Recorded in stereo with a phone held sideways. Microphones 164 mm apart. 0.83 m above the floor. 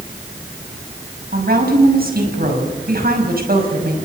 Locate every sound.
1.3 s a woman speaking: 60° right (ahead or behind), 5.5 m